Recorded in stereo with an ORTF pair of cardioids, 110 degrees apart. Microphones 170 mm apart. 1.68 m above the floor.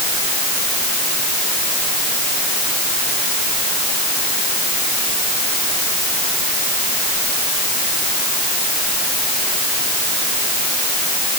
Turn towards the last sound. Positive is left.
No sound to turn to.